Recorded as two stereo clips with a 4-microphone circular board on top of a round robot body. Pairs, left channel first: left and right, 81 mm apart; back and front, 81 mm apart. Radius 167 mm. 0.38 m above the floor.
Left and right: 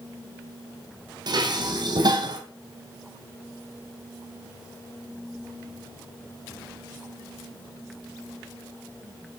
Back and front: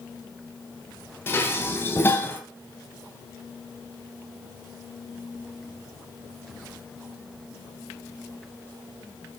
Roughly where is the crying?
I don't hear crying.